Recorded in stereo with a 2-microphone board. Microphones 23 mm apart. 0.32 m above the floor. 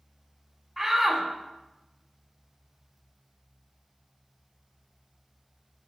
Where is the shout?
Centre (ahead or behind), 2.5 m.